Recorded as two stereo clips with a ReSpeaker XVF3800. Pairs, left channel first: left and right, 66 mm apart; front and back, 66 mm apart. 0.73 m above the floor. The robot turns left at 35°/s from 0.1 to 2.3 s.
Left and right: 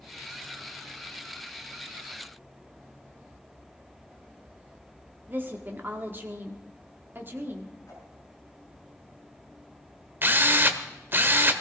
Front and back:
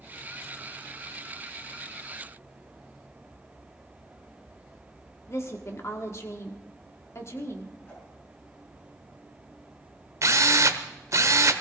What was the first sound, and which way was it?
A woman speaking, 35° right.